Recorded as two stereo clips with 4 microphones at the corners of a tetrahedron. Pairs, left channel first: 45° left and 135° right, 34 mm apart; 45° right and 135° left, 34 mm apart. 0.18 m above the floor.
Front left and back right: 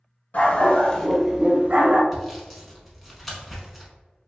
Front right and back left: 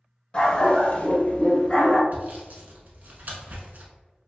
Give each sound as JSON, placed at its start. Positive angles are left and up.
{"t": 0.3, "sound": "a dog barking", "azimuth_deg": 15, "distance_m": 0.9}
{"t": 2.1, "sound": "sawing", "azimuth_deg": 135, "distance_m": 0.8}